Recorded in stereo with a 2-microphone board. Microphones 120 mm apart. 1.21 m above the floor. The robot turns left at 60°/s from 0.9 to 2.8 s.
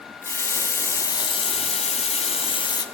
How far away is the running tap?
About 0.7 m.